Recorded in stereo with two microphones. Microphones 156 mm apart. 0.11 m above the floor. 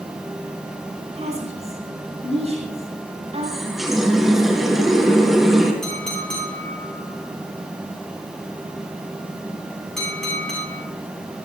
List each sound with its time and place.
1.1 s a woman speaking: 45° right (ahead or behind), 7 m
3.4 s a running tap: centre (ahead or behind), 2.5 m
5.8 s a clink: 5° left (ahead or behind), 7.5 m